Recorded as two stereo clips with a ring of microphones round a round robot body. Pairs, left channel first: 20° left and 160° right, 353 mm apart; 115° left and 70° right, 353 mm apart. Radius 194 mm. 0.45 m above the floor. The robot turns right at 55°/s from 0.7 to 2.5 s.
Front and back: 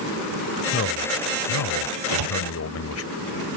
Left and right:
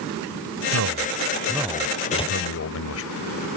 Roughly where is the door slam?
Behind.